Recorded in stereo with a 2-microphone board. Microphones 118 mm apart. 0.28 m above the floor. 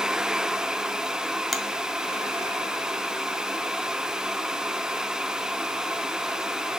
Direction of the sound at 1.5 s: Centre (ahead or behind).